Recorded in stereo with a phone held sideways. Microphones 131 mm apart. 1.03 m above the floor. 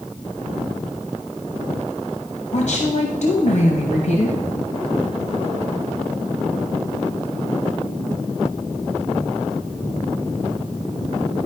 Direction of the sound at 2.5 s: 60° left (ahead or behind).